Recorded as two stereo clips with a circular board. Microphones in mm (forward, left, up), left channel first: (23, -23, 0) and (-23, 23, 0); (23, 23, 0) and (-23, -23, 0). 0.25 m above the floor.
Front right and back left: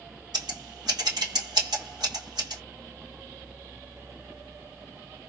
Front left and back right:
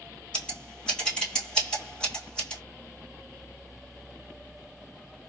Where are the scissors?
120° left, 1.7 m.